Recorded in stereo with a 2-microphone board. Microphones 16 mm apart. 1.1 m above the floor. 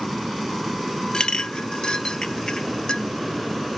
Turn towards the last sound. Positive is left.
turn(degrees=55)  # may be behind; listen again after turning